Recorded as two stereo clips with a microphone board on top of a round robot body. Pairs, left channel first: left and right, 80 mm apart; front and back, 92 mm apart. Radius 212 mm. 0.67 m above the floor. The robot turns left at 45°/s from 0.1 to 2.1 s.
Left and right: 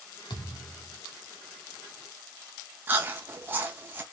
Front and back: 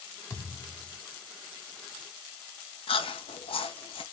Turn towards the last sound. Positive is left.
turn(degrees=-20)